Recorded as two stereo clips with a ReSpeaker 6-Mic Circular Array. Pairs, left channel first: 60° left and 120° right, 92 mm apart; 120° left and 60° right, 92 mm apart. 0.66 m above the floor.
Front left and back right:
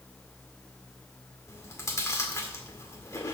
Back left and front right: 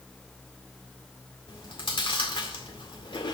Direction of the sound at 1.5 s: 115° left.